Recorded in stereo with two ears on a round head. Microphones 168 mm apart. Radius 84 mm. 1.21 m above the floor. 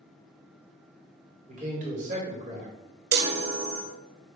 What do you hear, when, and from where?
1.5 s a man speaking: 40° right (ahead or behind), 2 m
3.1 s a chime: 55° right (ahead or behind), 1.0 m